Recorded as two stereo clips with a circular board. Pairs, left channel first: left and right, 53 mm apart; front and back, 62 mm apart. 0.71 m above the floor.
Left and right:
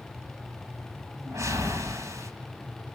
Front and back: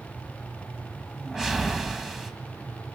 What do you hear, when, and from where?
1.2 s a whoosh: 95° right, 2.5 m